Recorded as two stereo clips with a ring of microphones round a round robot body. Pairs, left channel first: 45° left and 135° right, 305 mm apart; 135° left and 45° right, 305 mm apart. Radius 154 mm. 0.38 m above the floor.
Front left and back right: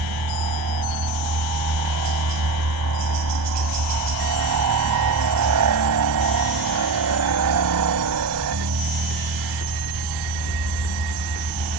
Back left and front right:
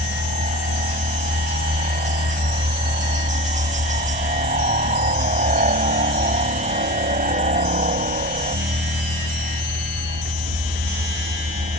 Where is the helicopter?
110° right.